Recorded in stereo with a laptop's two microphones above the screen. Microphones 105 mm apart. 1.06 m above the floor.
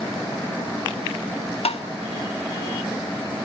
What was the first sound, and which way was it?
Tapping, 75° left (ahead or behind).